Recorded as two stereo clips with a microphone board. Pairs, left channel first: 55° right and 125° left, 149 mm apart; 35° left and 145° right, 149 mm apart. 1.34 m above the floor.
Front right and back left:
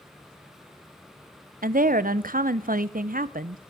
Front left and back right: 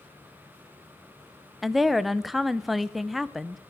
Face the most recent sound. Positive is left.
turn(degrees=125)